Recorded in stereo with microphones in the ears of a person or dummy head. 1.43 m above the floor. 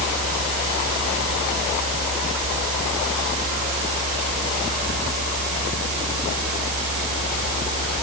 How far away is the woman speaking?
No woman speaking in this recording.